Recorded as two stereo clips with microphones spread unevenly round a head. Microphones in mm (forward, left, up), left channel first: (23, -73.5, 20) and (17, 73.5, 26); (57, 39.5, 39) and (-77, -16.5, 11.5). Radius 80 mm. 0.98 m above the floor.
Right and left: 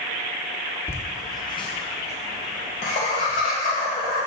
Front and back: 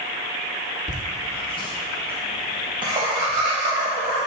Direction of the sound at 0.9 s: 15° right.